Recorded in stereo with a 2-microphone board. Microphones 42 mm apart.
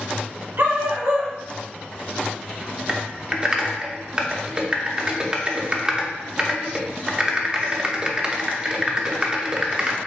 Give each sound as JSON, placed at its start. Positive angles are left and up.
{"t": 0.6, "sound": "a dog barking", "side_deg": -75, "distance_m": 1.7}
{"t": 2.9, "sound": "typing on a keyboard", "side_deg": -25, "distance_m": 0.6}